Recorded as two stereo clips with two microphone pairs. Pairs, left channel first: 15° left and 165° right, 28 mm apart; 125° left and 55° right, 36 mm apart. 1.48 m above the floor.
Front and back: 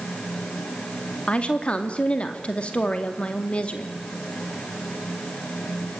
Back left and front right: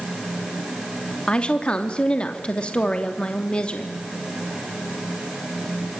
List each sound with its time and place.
1.3 s a woman speaking: 60° left, 2.5 m